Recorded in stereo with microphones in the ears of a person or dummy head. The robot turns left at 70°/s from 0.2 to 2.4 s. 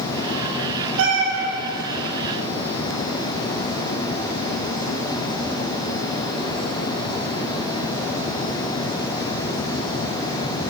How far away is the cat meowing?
About 1.8 m.